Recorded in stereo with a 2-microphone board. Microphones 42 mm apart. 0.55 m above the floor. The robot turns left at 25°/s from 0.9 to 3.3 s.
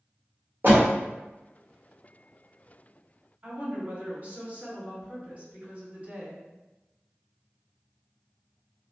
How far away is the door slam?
About 1.1 m.